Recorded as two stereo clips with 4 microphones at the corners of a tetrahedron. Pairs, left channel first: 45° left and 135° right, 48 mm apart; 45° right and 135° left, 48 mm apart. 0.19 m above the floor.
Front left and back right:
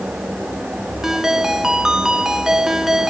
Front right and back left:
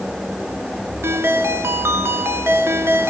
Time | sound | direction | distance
1.0 | a ringtone | 150° left | 1.3 m